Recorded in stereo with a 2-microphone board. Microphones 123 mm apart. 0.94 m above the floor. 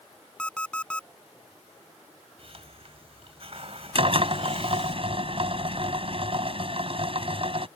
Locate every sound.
0.4 s an alarm clock: 10° left (ahead or behind)
2.4 s a hiss: 55° right (ahead or behind)
4.0 s a drill: 50° right (ahead or behind)